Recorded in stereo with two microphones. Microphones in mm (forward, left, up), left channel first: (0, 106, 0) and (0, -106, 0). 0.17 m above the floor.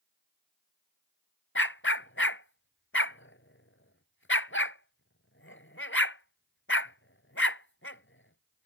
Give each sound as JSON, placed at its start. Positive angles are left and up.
{"t": 1.6, "sound": "a dog barking", "side_deg": 70}